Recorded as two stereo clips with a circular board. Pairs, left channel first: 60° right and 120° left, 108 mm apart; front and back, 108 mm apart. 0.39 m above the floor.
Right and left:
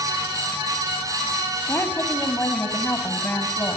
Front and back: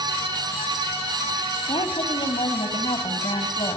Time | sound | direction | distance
1.7 | a woman speaking | 5° left | 2 m